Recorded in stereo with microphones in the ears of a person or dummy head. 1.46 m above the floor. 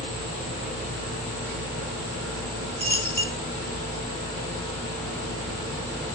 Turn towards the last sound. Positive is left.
turn(degrees=-10)  # may be behind; listen again after turning